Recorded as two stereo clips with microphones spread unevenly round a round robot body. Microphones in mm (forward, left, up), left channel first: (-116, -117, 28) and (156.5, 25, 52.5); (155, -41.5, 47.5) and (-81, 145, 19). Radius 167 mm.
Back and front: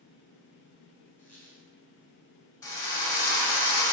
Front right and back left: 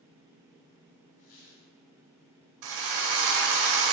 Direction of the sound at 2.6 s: 125° left.